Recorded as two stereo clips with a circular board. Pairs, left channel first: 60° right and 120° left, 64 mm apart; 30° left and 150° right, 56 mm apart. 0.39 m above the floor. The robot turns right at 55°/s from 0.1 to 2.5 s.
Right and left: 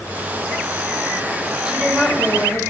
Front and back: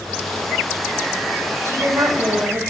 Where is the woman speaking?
170° right, 2.5 m; by 2.6 s 120° right, 2.5 m.